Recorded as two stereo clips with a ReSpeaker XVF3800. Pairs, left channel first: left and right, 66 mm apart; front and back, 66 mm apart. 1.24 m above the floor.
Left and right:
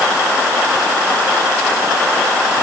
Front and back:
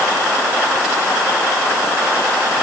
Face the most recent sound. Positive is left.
No sound to turn to.